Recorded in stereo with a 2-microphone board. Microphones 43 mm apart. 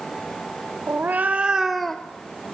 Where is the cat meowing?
50° right (ahead or behind), 1.7 m; by 2.5 s 45° left (ahead or behind), 1.4 m.